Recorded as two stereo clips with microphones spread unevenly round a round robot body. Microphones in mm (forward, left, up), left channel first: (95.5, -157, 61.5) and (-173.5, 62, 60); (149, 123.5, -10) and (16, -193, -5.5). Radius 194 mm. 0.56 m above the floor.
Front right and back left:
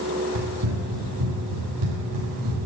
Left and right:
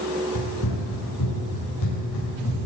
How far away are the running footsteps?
About 5.5 m.